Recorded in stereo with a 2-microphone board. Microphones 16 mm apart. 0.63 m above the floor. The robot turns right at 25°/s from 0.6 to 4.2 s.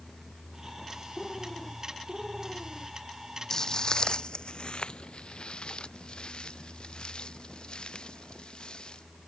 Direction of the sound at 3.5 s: 35° left (ahead or behind).